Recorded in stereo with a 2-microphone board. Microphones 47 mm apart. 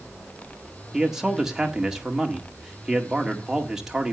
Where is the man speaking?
15° right (ahead or behind), 1.7 m.